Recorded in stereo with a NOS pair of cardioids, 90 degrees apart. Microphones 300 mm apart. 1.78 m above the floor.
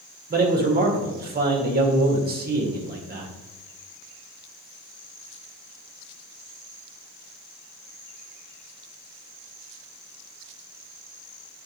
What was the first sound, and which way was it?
A man speaking, 30° right.